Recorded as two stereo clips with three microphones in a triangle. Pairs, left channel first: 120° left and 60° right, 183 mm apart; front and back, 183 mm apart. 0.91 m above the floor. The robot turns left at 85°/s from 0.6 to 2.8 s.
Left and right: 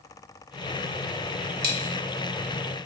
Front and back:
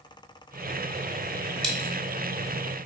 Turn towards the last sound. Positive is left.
turn(degrees=175)